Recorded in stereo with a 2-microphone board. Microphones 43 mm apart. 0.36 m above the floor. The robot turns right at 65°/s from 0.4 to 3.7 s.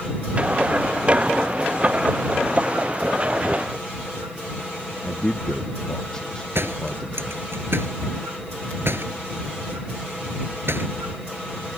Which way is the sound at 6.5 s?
60° right (ahead or behind).